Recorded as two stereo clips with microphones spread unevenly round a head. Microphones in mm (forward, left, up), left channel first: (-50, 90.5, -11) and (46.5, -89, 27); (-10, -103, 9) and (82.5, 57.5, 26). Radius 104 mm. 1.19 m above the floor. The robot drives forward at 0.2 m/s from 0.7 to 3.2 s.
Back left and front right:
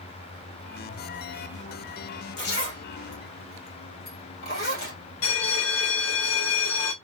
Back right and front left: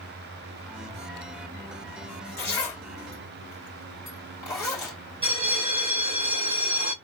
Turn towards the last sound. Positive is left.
turn(degrees=125)